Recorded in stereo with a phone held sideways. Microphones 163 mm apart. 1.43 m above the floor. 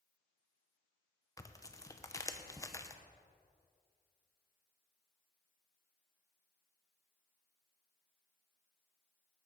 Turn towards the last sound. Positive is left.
turn(degrees=20)  # may be behind; listen again after turning